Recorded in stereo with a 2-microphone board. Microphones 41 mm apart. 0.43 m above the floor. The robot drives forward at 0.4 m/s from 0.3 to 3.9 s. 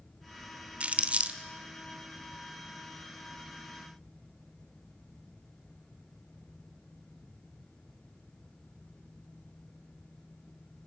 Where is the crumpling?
35° right (ahead or behind), 0.9 m; by 1.4 s 30° right (ahead or behind), 1.0 m.